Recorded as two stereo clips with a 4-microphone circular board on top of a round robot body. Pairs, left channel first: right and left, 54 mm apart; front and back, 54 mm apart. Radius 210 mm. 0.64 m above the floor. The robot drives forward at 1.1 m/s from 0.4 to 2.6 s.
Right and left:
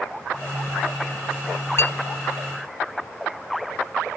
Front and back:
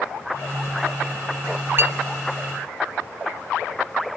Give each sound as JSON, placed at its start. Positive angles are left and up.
{"t": 1.8, "sound": "a clink", "azimuth_deg": -130, "distance_m": 0.6}